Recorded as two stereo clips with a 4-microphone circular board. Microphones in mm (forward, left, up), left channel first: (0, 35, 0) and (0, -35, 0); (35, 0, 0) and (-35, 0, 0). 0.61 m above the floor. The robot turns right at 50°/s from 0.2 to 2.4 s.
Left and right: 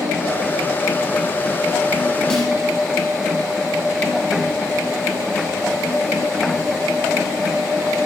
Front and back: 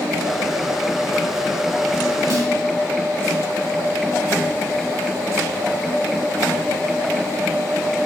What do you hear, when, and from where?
2.3 s a snare drum: 165° left, 0.9 m; by 2.5 s 170° left, 0.9 m